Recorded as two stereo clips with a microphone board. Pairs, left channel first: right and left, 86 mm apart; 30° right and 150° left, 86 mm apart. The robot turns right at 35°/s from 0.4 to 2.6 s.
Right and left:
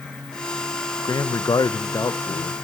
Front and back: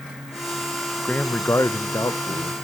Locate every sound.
1.0 s a man speaking: 95° right, 0.6 m; by 2.5 s 40° right, 0.6 m